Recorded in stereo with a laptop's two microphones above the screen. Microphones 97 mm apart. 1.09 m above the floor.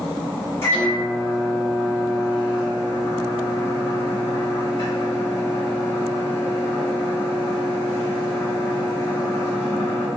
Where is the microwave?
25° left (ahead or behind), 1.3 m.